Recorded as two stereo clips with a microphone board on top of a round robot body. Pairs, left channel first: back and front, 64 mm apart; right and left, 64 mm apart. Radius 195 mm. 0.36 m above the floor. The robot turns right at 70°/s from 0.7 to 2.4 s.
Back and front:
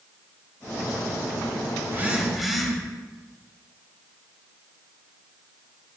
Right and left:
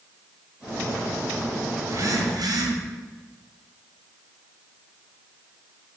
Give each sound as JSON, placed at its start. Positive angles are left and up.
{"t": 1.8, "sound": "a phone buzzing", "azimuth_deg": 45, "distance_m": 1.9}